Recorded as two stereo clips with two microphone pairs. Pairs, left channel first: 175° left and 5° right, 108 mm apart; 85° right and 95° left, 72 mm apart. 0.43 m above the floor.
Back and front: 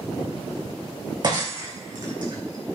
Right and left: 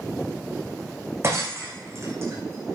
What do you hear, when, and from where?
1.2 s breaking glass: 40° left, 4.5 m